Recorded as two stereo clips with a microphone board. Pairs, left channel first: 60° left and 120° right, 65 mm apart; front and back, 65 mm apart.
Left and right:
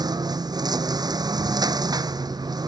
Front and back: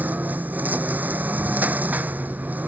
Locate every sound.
0.0 s a lawn mower: 115° right